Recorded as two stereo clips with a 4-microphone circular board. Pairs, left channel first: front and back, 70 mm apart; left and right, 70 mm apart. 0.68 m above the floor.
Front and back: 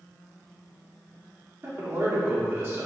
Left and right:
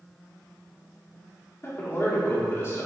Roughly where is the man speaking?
Behind left.